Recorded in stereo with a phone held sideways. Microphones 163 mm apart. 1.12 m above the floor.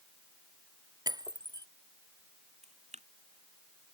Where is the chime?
No chime in this recording.